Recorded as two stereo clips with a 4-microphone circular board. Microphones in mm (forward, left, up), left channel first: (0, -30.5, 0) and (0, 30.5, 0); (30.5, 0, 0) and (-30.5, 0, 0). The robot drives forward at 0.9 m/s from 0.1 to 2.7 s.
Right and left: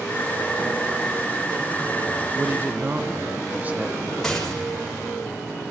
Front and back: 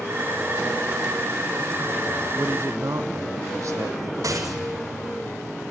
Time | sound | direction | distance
2.4 | a man speaking | 135° left | 0.6 m
4.2 | a rattle | 170° right | 5 m